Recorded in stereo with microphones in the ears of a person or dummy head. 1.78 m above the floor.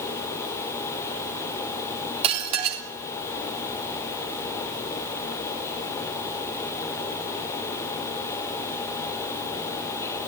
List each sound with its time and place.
2.2 s dishes clattering: 35° right (ahead or behind), 3.5 m